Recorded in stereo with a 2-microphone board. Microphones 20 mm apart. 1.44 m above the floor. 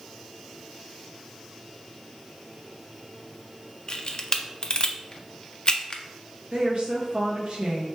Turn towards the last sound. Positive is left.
turn(degrees=-50)  # may be behind; listen again after turning